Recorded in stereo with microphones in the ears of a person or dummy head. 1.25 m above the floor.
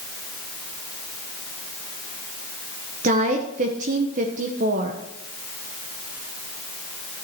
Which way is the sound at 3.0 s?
40° right (ahead or behind).